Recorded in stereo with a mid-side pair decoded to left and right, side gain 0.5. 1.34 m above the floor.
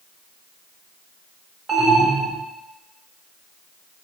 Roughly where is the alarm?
Ahead right.